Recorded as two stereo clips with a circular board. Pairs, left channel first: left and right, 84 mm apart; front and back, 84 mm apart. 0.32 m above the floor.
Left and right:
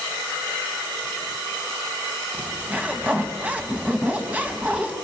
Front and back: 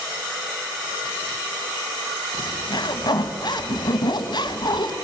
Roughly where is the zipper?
Ahead.